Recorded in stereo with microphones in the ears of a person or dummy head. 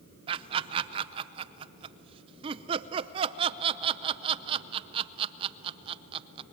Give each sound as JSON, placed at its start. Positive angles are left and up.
{"t": 0.3, "sound": "laughter", "side_deg": -30, "distance_m": 0.6}